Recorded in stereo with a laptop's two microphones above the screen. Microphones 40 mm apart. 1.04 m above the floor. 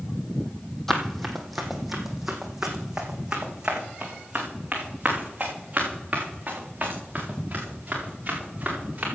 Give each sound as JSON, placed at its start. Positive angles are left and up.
{"t": 0.9, "sound": "running footsteps", "side_deg": 5, "distance_m": 1.5}